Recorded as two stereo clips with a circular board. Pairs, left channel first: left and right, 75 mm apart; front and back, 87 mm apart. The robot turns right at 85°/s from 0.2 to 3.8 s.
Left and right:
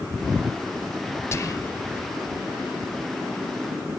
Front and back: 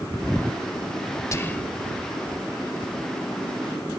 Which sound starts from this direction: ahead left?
Whispering, at 1.3 s.